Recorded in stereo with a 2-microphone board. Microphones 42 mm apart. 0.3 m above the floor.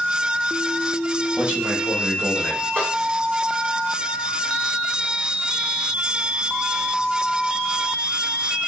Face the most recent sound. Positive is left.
turn(degrees=-40)  # may be behind; listen again after turning